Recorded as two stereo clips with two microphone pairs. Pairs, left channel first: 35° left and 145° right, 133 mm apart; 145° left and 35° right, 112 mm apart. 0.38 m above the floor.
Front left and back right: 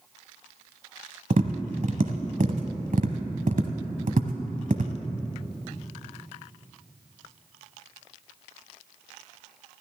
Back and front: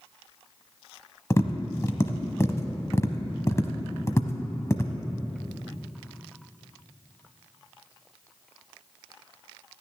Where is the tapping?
150° right, 1.0 m.